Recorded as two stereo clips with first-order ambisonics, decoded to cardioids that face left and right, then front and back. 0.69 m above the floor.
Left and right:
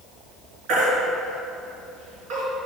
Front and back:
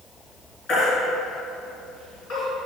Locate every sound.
0.7 s a baby crying: 60° right, 3.5 m